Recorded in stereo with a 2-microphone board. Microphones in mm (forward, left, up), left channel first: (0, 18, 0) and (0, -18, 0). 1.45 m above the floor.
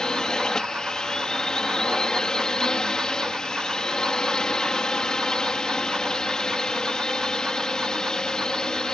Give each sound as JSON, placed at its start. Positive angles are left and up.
{"t": 0.0, "sound": "a drone", "side_deg": 20}